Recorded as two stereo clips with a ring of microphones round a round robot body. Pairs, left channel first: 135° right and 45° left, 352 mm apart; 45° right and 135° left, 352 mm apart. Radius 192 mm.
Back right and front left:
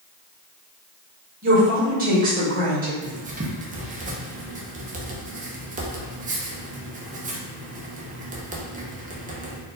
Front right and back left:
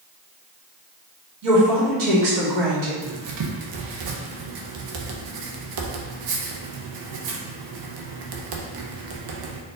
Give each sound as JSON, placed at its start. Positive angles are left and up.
{"t": 1.4, "sound": "a woman speaking", "azimuth_deg": 110, "distance_m": 1.9}
{"t": 3.0, "sound": "writing", "azimuth_deg": 115, "distance_m": 0.8}